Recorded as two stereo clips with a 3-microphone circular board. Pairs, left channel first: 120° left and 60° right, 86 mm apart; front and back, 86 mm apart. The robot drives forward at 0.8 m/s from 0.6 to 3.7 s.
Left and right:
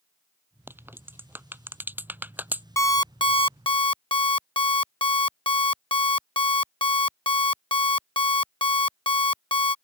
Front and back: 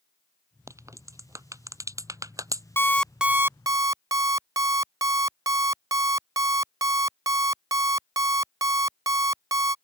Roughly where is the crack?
Behind right.